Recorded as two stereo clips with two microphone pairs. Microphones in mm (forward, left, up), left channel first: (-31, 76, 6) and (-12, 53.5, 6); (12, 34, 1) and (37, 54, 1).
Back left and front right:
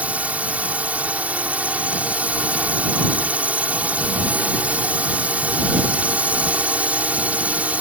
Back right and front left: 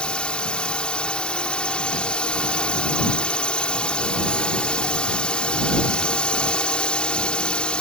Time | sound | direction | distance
0.0 | a drone | 85° right | ?